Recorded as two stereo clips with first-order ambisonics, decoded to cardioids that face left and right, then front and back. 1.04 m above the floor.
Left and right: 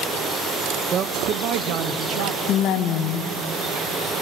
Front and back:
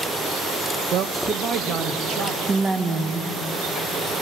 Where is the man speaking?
140° right, 0.7 m; by 2.4 s 115° right, 1.7 m.